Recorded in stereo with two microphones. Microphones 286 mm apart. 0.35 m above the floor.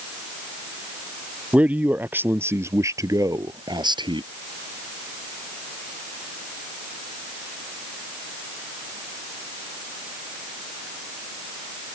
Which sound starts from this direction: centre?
A man speaking, at 1.5 s.